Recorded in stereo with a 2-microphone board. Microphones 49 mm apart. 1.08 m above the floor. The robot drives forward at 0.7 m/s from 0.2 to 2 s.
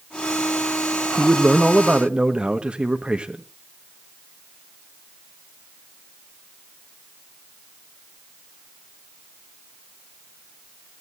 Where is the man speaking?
30° right (ahead or behind), 1.1 m; by 3.4 s 20° right (ahead or behind), 1.5 m.